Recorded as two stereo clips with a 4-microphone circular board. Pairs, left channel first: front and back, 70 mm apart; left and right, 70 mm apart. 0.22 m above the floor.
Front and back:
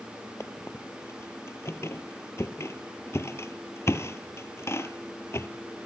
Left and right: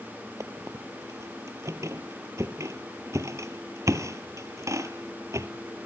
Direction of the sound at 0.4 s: 50° right.